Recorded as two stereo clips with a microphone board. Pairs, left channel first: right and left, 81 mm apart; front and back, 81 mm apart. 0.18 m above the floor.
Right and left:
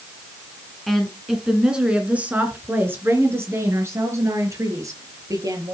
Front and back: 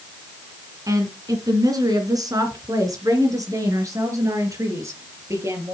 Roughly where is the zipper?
I don't hear a zipper.